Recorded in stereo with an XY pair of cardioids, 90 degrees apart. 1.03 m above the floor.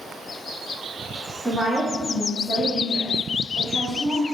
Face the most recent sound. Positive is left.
turn(degrees=-40)